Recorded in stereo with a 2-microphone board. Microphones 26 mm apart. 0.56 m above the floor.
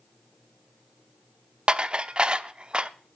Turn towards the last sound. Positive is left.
turn(degrees=-35)  # may be behind; listen again after turning